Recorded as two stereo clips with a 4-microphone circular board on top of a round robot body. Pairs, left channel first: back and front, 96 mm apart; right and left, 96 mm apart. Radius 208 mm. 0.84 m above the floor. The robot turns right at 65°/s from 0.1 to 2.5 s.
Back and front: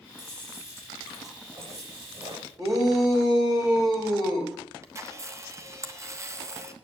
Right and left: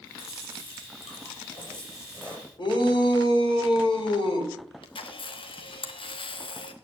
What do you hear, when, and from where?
0.2 s chewing: 155° right, 7.5 m; by 2.5 s 10° right, 7.5 m
2.6 s a shout: 55° right, 4.5 m
4.8 s a camera shutter: 60° right, 1.2 m